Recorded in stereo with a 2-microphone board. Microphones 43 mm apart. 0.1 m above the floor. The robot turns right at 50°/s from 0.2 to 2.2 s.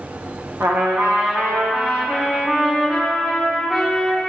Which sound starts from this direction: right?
A trumpet, at 0.6 s.